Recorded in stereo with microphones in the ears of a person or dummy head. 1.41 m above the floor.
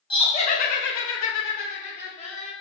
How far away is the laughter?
About 0.8 m.